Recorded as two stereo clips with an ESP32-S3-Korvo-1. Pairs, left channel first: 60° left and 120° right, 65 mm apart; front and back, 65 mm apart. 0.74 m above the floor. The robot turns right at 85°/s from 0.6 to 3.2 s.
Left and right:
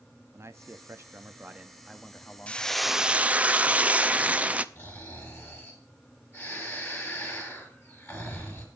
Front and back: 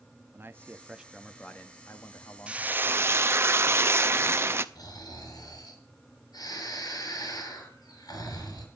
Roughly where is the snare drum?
No snare drum in this recording.